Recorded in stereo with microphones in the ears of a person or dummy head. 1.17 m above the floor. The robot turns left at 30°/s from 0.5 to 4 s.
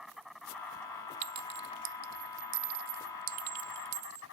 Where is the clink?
45° right (ahead or behind); by 4.2 s 50° right (ahead or behind).